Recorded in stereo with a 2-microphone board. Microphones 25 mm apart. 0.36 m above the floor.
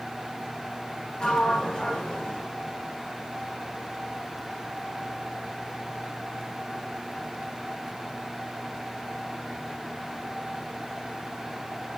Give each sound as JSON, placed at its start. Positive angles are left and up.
{"t": 1.2, "sound": "a sliding door", "side_deg": 25, "distance_m": 1.6}